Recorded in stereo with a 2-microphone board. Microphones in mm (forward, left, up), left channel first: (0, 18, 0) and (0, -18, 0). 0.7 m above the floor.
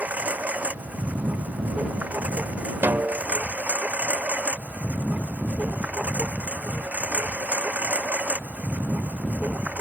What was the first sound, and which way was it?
A lawn mower, 45° right (ahead or behind).